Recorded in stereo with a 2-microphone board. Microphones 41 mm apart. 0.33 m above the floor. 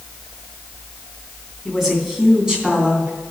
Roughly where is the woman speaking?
Centre.